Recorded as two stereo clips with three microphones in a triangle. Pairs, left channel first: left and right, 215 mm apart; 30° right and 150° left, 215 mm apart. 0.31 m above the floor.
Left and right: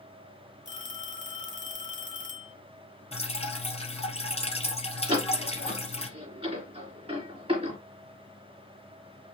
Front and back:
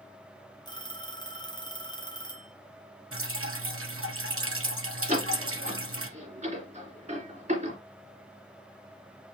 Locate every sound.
0.7 s a phone ringing: 40° left, 1.6 m
3.1 s dripping: 150° left, 1.5 m
5.1 s a door slam: 155° right, 3 m